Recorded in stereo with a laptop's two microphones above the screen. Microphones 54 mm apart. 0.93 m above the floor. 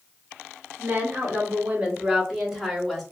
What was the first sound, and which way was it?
A woman speaking, 35° right (ahead or behind).